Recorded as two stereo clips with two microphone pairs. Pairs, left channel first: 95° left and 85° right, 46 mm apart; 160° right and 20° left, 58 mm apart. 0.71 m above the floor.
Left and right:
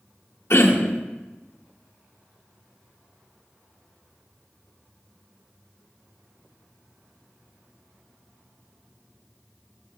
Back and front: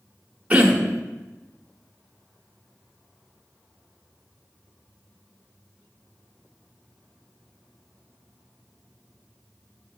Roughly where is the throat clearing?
Left.